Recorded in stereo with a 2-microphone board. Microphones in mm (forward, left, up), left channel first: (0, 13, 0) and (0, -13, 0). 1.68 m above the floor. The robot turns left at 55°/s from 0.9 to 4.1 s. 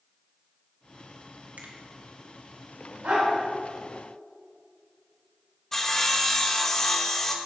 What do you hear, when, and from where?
1.6 s a finger snap: 75° right (ahead or behind), 1.9 m; by 1.8 s 80° right, 1.9 m
3.0 s a dog barking: 70° right (ahead or behind), 4.5 m; by 3.3 s 55° right (ahead or behind), 4.5 m
5.7 s sawing: 15° left (ahead or behind), 1.0 m